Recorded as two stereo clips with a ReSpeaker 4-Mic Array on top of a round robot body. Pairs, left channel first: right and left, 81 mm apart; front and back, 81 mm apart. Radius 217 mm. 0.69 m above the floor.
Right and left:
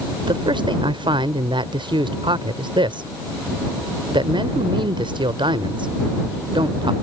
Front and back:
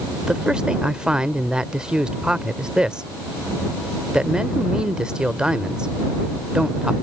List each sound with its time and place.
0.2 s a man speaking: 100° left